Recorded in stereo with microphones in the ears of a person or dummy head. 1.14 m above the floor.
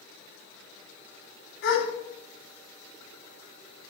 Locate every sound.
1.6 s a gasp: 80° left, 4 m